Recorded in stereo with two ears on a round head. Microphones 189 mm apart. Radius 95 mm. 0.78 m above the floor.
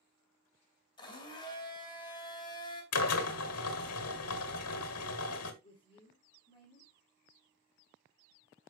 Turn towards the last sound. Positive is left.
turn(degrees=25)  # may be behind; listen again after turning